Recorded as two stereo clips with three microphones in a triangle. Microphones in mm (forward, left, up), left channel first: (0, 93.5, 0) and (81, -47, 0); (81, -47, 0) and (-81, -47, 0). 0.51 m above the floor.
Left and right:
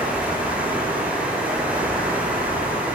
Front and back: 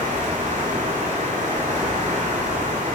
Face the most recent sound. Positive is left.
turn(degrees=-140)